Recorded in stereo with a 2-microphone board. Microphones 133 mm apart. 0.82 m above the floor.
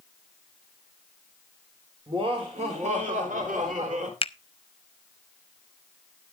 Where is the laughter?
45° right (ahead or behind), 3 m; by 4.1 s 65° right (ahead or behind), 3 m.